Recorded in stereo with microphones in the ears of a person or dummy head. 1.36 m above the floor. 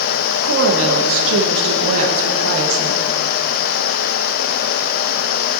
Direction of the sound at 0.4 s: 80° right.